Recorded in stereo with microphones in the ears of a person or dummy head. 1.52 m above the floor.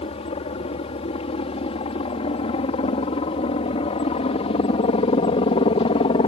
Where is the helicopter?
35° left (ahead or behind).